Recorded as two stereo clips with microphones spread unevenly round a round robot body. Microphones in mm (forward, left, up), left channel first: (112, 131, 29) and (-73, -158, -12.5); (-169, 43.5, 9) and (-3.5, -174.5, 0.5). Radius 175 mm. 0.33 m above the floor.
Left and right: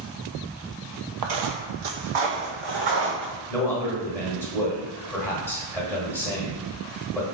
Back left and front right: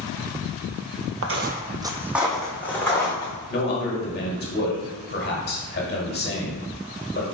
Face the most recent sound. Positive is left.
turn(degrees=150)